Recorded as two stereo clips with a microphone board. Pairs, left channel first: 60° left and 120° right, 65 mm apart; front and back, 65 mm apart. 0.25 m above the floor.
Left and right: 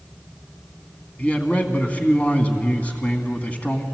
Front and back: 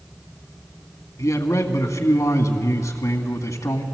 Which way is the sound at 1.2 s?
5° right.